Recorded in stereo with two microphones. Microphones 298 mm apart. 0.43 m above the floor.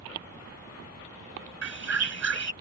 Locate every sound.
1.6 s a bird: 60° right (ahead or behind)